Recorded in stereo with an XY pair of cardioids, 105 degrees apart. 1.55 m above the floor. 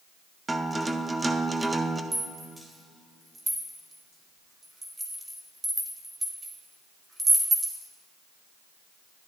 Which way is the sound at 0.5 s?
15° right.